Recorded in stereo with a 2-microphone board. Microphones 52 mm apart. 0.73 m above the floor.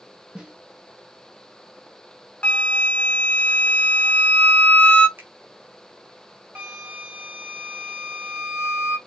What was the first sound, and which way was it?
A snare drum, 15° right (ahead or behind).